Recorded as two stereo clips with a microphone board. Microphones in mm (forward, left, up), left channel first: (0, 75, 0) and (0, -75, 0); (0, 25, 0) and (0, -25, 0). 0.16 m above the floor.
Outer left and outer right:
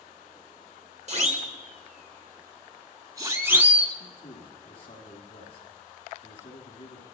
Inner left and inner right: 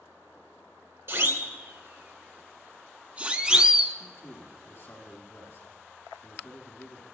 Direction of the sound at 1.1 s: 50° right (ahead or behind).